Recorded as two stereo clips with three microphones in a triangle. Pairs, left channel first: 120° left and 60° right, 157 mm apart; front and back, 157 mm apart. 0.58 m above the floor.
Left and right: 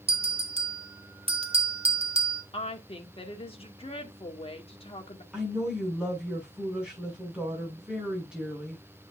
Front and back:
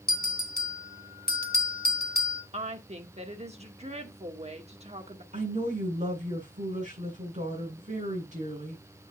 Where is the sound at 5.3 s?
145° right, 6 m.